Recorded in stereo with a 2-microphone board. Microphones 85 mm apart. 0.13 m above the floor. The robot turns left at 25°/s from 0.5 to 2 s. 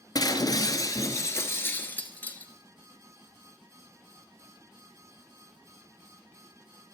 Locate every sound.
0.1 s breaking glass: 60° left, 1.1 m; by 2.5 s 25° left, 1.1 m